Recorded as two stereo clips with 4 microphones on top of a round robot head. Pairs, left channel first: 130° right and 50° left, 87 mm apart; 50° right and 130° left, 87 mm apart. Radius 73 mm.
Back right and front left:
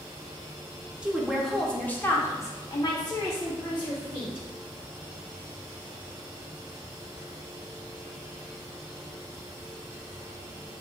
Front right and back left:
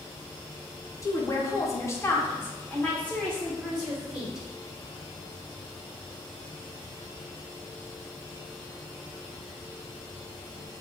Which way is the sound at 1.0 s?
25° right.